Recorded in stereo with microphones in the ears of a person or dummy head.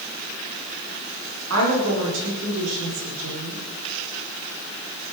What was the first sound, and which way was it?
A woman speaking, 75° right (ahead or behind).